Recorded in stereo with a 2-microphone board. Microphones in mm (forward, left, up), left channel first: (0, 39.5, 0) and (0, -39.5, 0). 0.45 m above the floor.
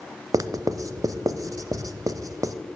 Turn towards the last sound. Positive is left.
turn(degrees=-45)  # may be behind; listen again after turning